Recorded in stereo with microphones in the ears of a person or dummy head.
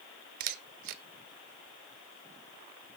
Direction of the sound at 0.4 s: 50° right (ahead or behind).